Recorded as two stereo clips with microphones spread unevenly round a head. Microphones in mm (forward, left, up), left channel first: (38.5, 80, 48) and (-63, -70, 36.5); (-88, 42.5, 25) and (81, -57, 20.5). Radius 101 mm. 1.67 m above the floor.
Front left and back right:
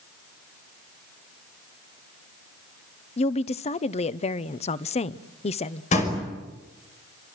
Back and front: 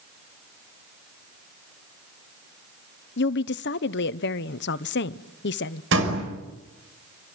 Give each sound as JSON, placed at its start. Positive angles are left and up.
{"t": 3.2, "sound": "a woman speaking", "azimuth_deg": 110, "distance_m": 0.8}
{"t": 5.9, "sound": "a door slam", "azimuth_deg": 0, "distance_m": 5.0}